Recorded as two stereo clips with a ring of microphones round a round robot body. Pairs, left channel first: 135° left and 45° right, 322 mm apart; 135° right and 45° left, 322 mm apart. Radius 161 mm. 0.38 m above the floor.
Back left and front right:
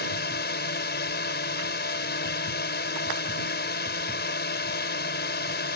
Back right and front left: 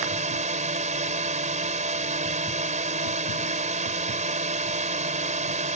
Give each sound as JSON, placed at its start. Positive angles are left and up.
{"t": 0.0, "sound": "a drone", "azimuth_deg": 100}